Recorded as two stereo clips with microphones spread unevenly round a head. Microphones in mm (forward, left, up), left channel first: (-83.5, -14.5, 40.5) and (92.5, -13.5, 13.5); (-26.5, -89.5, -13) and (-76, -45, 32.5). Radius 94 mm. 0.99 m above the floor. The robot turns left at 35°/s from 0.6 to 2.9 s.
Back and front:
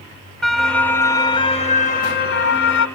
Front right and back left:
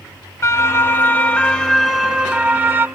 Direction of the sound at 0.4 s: 90° right.